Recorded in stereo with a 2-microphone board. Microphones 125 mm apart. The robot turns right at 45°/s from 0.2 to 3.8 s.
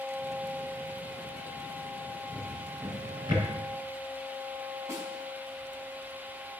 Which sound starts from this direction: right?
A snare drum, at 4.9 s.